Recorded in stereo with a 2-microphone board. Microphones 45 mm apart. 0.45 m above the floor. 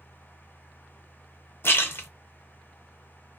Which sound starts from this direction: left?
A splash, at 1.6 s.